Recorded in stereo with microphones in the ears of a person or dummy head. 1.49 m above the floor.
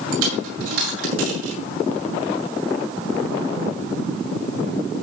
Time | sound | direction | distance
0.1 | a dropped coin | 80° right | 7 m